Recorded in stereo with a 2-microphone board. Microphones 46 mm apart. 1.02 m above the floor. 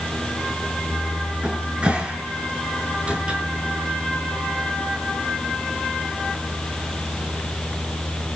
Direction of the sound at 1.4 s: 25° right (ahead or behind).